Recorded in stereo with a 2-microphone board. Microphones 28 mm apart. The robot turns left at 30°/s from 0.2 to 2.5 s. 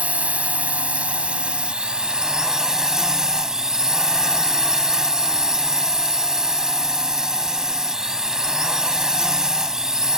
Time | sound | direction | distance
0.0 | a drone | 85° right | ?